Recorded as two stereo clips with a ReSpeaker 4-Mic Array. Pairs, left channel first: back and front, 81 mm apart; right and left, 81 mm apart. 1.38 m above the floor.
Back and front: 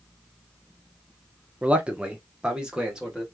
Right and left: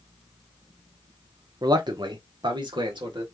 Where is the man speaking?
70° left, 0.7 m; by 3.2 s 80° left, 1.5 m.